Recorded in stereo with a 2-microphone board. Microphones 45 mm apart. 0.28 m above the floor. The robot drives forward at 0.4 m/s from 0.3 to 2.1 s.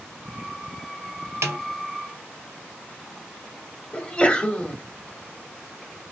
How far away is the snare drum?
About 0.9 m.